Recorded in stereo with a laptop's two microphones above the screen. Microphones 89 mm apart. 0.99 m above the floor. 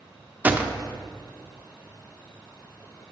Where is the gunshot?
20° right (ahead or behind), 0.5 m.